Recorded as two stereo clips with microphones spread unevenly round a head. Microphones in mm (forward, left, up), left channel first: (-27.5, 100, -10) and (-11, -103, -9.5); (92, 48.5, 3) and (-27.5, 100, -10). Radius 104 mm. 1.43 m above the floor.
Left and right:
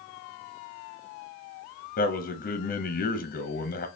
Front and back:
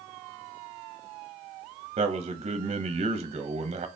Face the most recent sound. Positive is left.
turn(degrees=130)